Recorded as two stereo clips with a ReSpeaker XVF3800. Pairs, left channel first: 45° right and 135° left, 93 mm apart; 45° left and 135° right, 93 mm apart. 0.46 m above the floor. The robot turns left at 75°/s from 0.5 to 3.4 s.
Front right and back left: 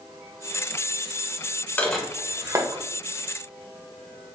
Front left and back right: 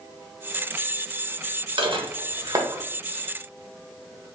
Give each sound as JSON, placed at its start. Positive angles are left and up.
{"t": 1.8, "sound": "dishes clattering", "azimuth_deg": -115, "distance_m": 0.9}